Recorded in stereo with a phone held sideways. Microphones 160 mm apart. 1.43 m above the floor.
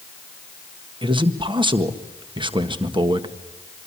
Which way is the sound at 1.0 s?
30° right (ahead or behind).